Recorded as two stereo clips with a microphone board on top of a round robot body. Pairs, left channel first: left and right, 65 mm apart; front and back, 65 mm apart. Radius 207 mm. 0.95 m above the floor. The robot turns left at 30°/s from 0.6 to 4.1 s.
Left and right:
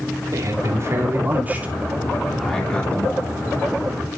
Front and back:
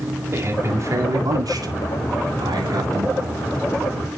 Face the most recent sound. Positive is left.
turn(degrees=125)